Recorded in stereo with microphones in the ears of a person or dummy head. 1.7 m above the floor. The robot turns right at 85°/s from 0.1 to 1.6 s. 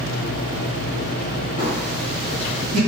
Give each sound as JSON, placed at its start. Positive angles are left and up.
{"t": 1.6, "sound": "a phone buzzing", "side_deg": -45, "distance_m": 1.8}